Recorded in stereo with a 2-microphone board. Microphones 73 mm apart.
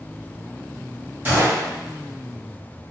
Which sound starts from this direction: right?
A gunshot, at 1.2 s.